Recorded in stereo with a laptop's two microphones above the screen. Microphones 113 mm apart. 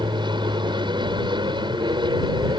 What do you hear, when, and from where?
0.0 s an aircraft: 45° right (ahead or behind)